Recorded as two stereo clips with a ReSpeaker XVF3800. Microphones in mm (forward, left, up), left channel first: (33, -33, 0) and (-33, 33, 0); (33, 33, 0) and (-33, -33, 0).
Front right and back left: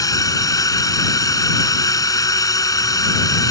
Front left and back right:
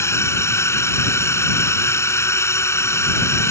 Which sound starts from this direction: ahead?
A drone, at 0.0 s.